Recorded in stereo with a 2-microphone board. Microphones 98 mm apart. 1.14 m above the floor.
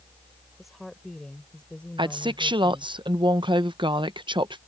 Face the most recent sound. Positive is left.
turn(degrees=-55)  # may be behind; listen again after turning